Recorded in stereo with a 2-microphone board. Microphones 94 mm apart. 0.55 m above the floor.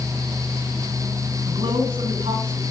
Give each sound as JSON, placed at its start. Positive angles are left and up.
{"t": 1.5, "sound": "a man speaking", "side_deg": -70, "distance_m": 5.5}